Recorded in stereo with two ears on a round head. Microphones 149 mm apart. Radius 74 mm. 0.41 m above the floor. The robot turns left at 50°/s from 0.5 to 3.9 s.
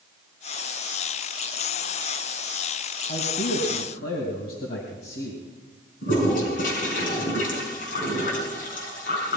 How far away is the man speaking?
About 2.5 m.